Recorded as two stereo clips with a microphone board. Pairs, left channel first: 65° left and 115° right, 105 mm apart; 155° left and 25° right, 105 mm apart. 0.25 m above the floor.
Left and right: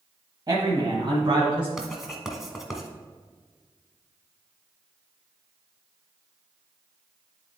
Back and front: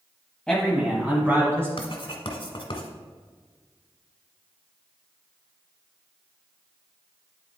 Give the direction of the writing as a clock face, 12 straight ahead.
7 o'clock.